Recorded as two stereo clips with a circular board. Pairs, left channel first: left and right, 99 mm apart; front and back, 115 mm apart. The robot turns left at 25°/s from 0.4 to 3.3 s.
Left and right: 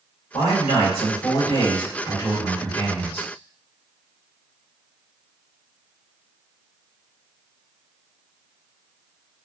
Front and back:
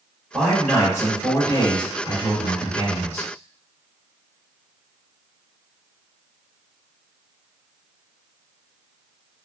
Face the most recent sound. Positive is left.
turn(degrees=10)